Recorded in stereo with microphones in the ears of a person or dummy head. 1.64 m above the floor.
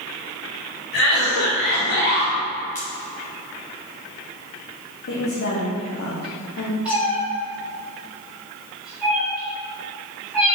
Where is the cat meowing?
5° right (ahead or behind), 1.9 m.